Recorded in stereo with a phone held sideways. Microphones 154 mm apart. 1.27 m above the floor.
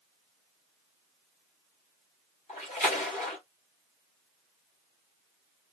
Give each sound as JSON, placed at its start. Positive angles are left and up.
{"t": 2.5, "sound": "a splash", "side_deg": 50, "distance_m": 3.5}